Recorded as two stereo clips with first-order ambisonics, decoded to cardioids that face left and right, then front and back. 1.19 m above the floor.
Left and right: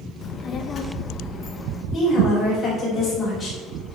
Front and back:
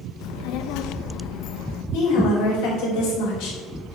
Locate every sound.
0.2 s a child speaking: 25° left, 0.6 m
1.9 s a woman speaking: 15° left, 4 m